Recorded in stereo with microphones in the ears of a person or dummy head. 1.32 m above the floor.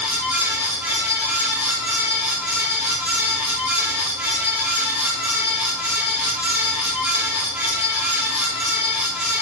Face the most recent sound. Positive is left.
turn(degrees=-5)  # may be behind; listen again after turning